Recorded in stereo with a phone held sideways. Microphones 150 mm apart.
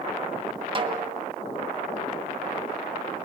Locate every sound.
0.8 s a snare drum: 35° right (ahead or behind), 2 m